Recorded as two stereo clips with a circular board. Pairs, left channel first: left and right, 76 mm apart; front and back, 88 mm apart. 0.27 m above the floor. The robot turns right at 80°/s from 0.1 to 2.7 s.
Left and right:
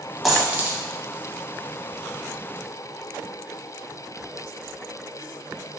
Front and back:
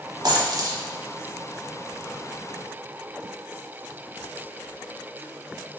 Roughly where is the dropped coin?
Behind.